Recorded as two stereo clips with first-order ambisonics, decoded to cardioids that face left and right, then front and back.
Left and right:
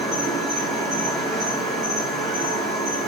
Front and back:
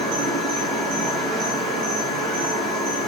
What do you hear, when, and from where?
0.0 s an insect: 140° right, 4 m